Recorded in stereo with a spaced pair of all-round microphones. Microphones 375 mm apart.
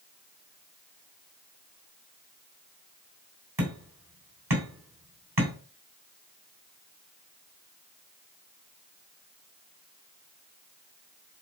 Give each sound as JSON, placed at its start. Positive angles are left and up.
{"t": 3.6, "sound": "hammering", "side_deg": -80, "distance_m": 3.0}